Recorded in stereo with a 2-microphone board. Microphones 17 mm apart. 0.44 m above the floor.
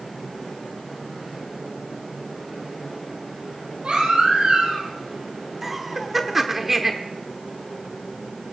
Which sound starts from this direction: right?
A baby crying, at 3.8 s.